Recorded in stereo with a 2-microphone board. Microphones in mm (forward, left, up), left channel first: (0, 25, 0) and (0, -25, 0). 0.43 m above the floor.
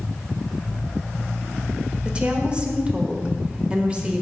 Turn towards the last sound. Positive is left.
turn(degrees=-20)  # may be behind; listen again after turning